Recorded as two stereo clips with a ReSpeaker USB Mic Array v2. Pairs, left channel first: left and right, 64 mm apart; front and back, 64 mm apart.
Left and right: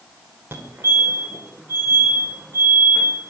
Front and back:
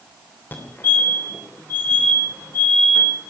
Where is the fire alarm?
45° right, 3 m.